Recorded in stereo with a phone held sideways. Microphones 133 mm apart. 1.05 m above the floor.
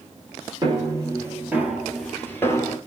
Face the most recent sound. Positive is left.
turn(degrees=30)  # may be behind; listen again after turning